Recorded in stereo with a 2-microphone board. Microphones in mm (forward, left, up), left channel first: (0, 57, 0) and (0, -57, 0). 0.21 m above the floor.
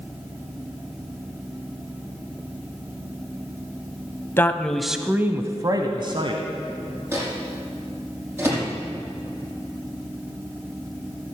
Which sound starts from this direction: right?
A microwave, at 7.1 s.